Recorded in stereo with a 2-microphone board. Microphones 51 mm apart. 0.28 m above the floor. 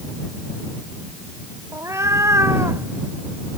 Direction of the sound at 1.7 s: 70° right (ahead or behind).